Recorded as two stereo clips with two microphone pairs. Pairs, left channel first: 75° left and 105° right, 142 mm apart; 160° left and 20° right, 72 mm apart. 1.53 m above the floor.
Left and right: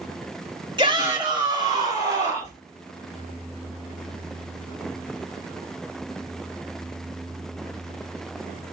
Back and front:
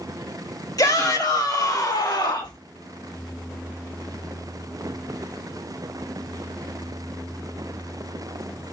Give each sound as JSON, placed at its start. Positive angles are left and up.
{"t": 0.8, "sound": "a shout", "azimuth_deg": -165, "distance_m": 3.0}